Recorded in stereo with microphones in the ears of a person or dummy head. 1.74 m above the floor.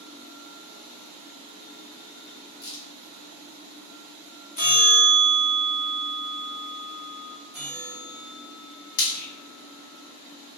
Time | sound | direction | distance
2.6 | a crack | 75° left (ahead or behind) | 1.8 m
4.6 | a bell | 45° left (ahead or behind) | 1.4 m
7.5 | a bell | 15° left (ahead or behind) | 1.8 m
9.0 | frying | 55° left (ahead or behind) | 0.6 m